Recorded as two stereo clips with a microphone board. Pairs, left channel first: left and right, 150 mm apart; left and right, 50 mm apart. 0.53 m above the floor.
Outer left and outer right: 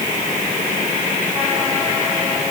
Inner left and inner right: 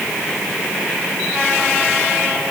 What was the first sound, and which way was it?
Only background noise.